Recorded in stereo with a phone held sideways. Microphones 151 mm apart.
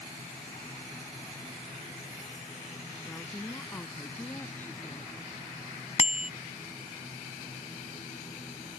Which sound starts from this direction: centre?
A woman speaking, at 3.0 s.